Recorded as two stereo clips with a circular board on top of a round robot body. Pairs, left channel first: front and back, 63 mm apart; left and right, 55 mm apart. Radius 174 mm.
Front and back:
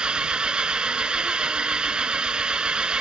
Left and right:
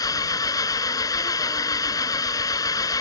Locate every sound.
0.0 s an engine running: 105° left